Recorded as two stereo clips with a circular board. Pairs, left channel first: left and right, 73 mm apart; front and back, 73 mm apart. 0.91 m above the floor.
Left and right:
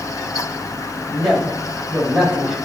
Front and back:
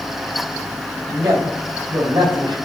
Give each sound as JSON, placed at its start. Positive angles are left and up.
{"t": 1.1, "sound": "a woman speaking", "azimuth_deg": -170, "distance_m": 5.0}